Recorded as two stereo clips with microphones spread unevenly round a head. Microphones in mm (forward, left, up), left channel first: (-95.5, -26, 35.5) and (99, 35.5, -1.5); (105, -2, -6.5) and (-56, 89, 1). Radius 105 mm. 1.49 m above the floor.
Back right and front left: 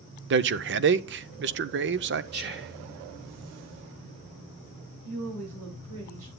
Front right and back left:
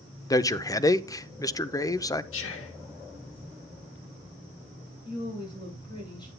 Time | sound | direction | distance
0.3 | a man speaking | 40° left | 0.6 m
2.3 | whispering | 25° right | 1.7 m
5.0 | a woman speaking | 35° left | 7.5 m